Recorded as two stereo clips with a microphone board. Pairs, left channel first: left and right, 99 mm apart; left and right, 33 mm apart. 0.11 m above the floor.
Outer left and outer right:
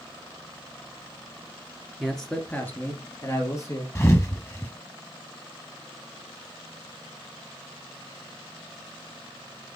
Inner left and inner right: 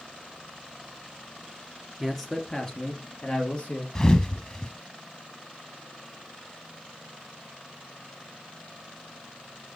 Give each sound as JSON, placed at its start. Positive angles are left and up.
{"t": 2.0, "sound": "a man speaking", "side_deg": 0, "distance_m": 1.5}
{"t": 4.0, "sound": "a thud", "side_deg": 25, "distance_m": 1.2}